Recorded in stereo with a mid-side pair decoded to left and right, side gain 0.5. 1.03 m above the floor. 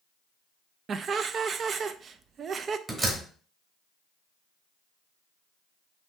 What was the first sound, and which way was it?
Laughter, 50° right.